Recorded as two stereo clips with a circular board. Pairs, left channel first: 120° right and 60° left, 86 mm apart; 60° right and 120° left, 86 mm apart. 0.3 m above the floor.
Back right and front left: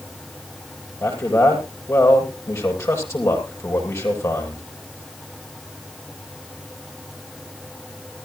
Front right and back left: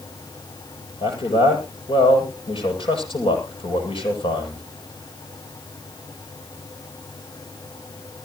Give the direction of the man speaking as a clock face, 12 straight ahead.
2 o'clock.